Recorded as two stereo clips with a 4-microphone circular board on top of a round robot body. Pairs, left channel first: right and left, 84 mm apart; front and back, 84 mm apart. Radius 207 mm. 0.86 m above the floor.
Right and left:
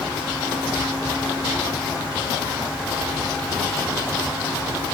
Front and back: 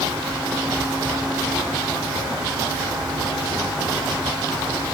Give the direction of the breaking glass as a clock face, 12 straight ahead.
No breaking glass in this recording.